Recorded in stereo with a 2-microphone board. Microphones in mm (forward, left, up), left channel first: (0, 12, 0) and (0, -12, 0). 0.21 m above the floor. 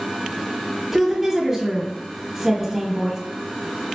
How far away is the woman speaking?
About 1.0 m.